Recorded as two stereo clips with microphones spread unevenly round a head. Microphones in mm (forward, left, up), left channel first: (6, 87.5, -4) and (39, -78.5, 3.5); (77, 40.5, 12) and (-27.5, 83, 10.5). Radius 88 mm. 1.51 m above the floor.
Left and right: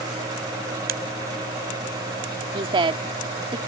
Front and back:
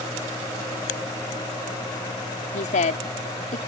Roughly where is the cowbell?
I don't hear a cowbell.